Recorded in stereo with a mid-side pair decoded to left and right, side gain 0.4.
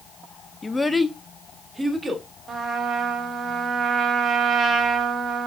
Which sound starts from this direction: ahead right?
A trumpet, at 2.5 s.